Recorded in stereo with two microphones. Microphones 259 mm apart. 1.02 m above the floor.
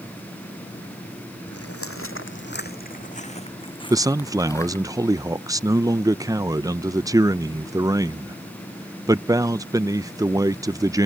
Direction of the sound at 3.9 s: 15° right (ahead or behind).